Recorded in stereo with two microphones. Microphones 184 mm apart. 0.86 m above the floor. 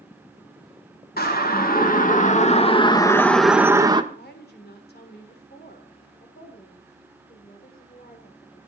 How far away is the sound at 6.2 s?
About 4 m.